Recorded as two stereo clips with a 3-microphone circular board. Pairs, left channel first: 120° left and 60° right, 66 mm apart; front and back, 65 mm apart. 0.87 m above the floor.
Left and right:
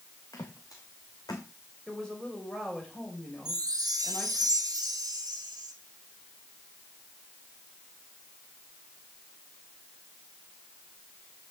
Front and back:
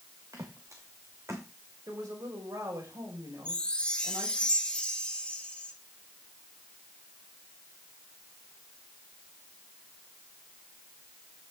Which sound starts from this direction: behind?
A woman speaking, at 1.9 s.